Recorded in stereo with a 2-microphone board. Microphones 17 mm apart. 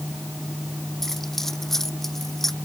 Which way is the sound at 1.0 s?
15° left (ahead or behind).